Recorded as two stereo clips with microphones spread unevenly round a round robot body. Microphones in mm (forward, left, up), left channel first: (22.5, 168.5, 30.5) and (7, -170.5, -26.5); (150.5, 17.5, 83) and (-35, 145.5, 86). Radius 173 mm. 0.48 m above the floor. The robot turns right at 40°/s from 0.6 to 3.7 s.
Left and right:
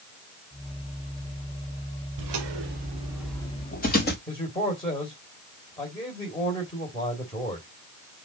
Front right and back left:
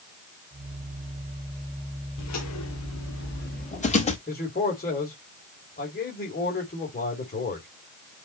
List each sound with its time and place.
2.2 s footsteps: 65° right, 2.5 m; by 4.2 s 30° left, 3.5 m
4.3 s a man speaking: 10° left, 2.5 m